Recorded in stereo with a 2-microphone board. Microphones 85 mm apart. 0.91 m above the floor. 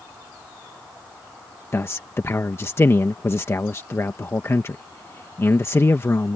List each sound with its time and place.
1.7 s a man speaking: 35° left (ahead or behind)